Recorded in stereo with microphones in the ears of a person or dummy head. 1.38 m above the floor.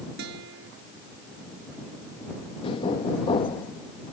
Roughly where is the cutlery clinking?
No cutlery clinking in this recording.